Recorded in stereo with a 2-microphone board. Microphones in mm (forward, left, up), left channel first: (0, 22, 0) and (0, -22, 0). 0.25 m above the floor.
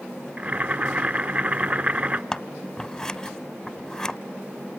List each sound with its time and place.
0.4 s boiling: 35° right (ahead or behind), 0.8 m
2.3 s scissors: 10° left (ahead or behind), 0.8 m